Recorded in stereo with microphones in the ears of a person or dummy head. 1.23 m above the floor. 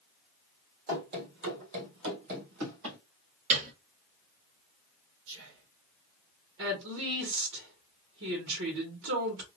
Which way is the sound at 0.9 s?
50° right (ahead or behind).